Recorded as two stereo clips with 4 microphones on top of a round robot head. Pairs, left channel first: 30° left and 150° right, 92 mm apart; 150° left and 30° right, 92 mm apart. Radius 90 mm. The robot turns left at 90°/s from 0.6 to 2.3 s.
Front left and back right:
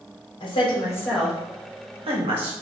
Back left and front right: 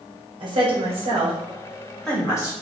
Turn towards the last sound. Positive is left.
turn(degrees=-150)